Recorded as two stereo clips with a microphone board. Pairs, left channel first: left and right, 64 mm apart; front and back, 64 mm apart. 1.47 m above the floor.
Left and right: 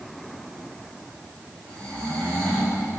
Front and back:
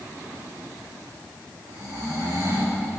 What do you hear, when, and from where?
1.7 s snoring: 160° left, 6 m